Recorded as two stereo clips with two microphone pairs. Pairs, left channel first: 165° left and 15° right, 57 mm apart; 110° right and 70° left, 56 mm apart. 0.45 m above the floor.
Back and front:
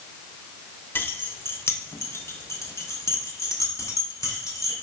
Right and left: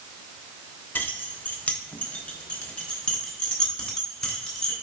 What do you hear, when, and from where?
0.9 s keys jangling: 155° right, 0.8 m; by 4.7 s straight behind, 3 m